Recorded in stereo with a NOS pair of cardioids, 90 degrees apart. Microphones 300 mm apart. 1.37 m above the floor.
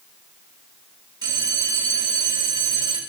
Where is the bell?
15° right, 3 m.